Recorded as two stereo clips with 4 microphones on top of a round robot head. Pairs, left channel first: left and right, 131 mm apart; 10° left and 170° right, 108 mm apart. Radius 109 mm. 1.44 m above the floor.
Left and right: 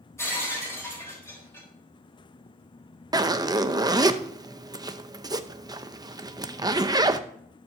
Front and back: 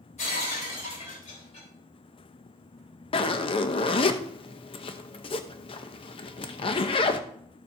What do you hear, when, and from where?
0.2 s breaking glass: 20° left, 3.5 m
3.1 s a zipper: 30° right, 0.7 m